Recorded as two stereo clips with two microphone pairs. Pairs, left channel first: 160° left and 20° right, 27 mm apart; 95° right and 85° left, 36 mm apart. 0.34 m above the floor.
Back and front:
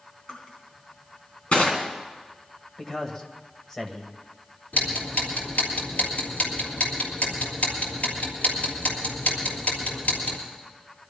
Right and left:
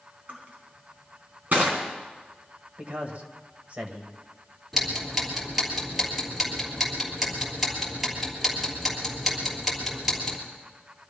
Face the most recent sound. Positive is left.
turn(degrees=170)